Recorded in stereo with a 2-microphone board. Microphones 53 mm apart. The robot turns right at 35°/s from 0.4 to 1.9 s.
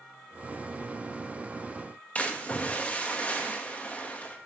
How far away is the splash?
About 1.5 m.